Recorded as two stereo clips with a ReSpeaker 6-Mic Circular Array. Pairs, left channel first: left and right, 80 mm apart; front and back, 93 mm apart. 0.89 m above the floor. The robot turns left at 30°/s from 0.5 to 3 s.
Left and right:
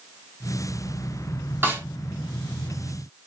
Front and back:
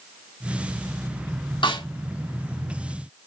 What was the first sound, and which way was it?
A snare drum, 25° right.